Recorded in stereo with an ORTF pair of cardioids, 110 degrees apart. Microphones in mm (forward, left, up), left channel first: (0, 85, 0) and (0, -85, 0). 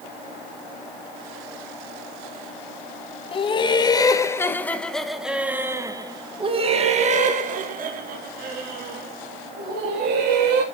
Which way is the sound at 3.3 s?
30° left.